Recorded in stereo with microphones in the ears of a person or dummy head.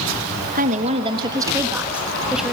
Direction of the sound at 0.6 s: 45° right (ahead or behind).